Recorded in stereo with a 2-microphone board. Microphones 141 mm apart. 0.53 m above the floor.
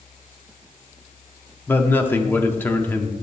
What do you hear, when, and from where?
1.7 s a man speaking: 15° left (ahead or behind), 0.9 m